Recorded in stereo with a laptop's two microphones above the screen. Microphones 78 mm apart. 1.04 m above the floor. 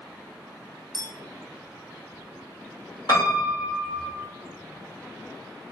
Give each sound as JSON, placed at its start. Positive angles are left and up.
{"t": 0.9, "sound": "a clink", "side_deg": 75, "distance_m": 1.1}
{"t": 3.1, "sound": "a piano", "side_deg": 70, "distance_m": 1.5}